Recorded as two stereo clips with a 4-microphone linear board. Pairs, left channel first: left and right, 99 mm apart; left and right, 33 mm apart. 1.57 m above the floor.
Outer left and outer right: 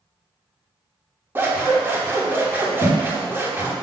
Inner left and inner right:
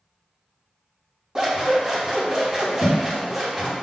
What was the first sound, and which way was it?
Scissors, 20° right (ahead or behind).